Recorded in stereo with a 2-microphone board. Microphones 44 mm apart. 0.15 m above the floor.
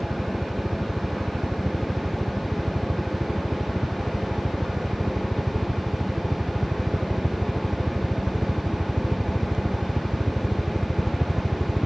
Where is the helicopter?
55° right (ahead or behind); by 11.9 s 5° right (ahead or behind).